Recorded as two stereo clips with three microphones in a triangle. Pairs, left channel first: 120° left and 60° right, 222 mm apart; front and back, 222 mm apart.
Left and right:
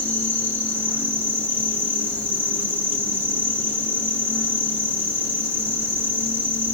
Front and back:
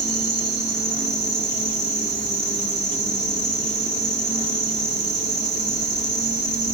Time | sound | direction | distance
0.0 | an insect | 60° right | 1.8 m